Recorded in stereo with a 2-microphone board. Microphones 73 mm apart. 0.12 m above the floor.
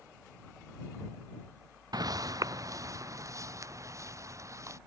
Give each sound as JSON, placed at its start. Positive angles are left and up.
{"t": 1.9, "sound": "footsteps", "side_deg": -65}